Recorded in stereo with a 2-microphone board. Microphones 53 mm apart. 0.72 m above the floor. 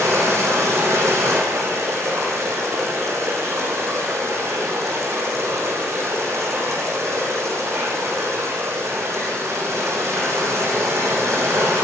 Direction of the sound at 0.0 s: 65° right (ahead or behind).